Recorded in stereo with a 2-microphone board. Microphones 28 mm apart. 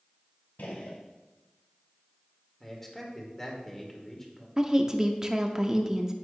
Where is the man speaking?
15° left (ahead or behind), 2 m.